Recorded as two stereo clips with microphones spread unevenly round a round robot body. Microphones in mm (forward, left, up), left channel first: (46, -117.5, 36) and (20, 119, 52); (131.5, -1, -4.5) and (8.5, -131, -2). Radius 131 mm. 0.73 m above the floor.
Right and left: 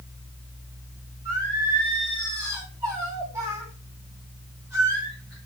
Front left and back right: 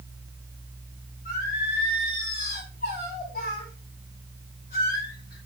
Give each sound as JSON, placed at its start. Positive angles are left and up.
{"t": 1.2, "sound": "singing", "azimuth_deg": 20, "distance_m": 6.0}